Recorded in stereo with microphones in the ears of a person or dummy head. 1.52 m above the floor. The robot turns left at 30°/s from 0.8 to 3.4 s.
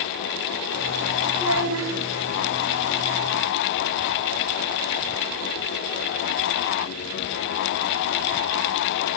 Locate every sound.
1.3 s a child speaking: 80° right, 5.5 m; by 1.9 s 75° right (ahead or behind), 5.5 m